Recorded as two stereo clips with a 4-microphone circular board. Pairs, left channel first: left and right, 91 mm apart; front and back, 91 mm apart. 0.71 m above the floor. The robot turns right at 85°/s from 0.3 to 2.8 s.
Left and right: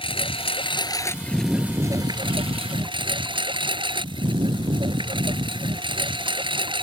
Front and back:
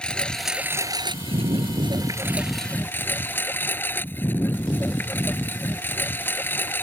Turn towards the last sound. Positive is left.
turn(degrees=-65)